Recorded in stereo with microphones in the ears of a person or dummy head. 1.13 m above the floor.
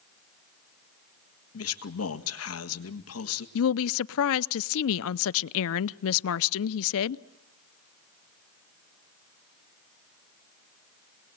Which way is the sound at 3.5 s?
75° left (ahead or behind).